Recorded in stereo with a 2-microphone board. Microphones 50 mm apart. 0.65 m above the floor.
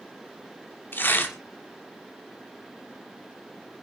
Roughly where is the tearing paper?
Left.